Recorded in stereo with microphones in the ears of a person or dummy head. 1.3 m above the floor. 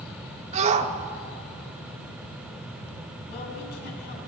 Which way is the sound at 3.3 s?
60° left (ahead or behind).